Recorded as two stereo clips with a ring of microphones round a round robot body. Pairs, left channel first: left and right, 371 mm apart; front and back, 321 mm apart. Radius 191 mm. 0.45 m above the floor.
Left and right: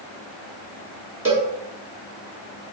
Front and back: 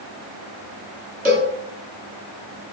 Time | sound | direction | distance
1.2 | a cowbell | 165° right | 1.3 m